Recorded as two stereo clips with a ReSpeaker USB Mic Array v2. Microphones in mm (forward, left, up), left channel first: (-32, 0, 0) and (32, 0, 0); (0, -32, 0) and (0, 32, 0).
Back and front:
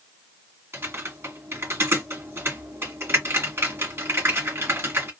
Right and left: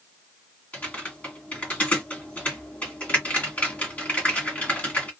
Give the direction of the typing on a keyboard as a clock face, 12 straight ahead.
1 o'clock.